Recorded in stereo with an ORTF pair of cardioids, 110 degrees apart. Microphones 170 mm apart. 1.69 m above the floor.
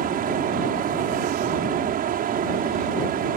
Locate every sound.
0.0 s a fan: 60° right